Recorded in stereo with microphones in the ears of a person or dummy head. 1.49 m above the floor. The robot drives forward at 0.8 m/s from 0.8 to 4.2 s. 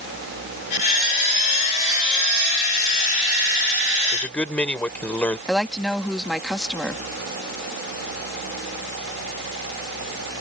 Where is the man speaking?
5° left (ahead or behind).